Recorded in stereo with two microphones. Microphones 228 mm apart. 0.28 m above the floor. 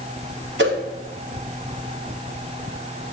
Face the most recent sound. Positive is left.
turn(degrees=-50)  # may be behind; listen again after turning